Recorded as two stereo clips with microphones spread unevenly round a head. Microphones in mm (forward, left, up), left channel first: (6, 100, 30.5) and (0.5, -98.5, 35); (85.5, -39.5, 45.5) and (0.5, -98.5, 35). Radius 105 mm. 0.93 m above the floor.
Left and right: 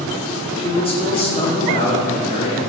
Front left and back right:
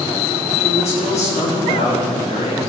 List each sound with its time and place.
0.6 s a man speaking: 25° left, 2.5 m